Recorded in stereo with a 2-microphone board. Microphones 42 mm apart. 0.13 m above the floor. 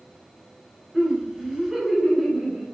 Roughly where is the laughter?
Centre.